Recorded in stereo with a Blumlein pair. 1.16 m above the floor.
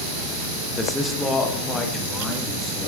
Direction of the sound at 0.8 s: 10° left.